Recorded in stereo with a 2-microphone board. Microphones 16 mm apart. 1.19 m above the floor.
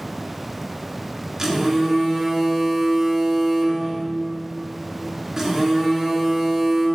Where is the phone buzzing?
30° right (ahead or behind), 3.5 m.